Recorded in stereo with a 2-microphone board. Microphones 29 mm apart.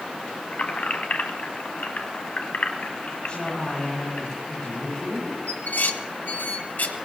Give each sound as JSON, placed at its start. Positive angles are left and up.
{"t": 0.5, "sound": "keys jangling", "side_deg": 60, "distance_m": 1.5}
{"t": 3.3, "sound": "a woman speaking", "side_deg": 25, "distance_m": 9.5}
{"t": 5.5, "sound": "dishes clattering", "side_deg": 60, "distance_m": 1.3}